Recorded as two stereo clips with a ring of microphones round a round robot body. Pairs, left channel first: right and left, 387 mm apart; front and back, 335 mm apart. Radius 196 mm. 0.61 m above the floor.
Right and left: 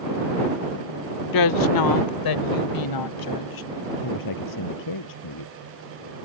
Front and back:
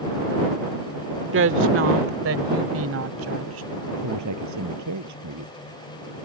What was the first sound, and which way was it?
A woman speaking, 125° right.